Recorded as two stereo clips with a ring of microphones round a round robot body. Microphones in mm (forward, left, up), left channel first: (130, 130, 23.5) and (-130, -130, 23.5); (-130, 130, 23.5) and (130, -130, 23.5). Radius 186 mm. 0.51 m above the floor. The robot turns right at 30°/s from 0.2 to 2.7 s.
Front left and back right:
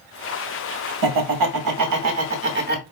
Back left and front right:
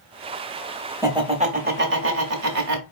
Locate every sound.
1.0 s laughter: 125° right, 1.2 m; by 2.8 s 75° right, 1.2 m